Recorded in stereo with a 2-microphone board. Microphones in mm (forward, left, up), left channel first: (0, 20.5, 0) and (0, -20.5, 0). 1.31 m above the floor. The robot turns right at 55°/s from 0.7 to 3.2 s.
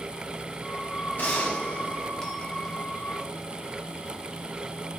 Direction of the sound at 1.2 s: 105° left.